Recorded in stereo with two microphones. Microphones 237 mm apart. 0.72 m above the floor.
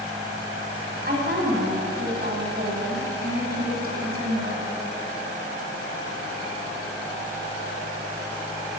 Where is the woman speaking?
40° right (ahead or behind), 6.5 m.